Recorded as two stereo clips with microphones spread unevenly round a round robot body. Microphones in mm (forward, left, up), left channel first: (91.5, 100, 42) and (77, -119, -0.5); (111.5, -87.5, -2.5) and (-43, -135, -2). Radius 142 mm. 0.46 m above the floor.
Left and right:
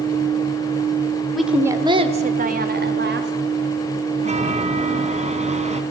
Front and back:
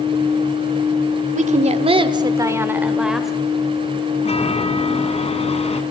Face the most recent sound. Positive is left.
turn(degrees=-35)